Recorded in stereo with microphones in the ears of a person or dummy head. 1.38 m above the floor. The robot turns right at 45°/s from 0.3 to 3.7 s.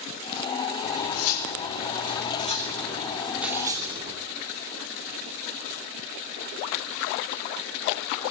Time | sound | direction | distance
0.8 | cutlery clinking | 60° left | 2.5 m